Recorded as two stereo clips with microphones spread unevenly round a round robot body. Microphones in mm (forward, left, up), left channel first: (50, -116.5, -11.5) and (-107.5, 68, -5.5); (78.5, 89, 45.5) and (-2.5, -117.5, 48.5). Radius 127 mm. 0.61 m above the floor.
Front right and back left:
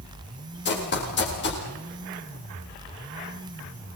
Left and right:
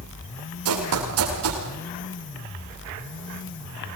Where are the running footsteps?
95° right, 9.5 m.